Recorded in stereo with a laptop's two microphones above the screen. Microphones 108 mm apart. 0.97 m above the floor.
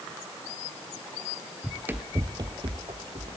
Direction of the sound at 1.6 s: Centre (ahead or behind).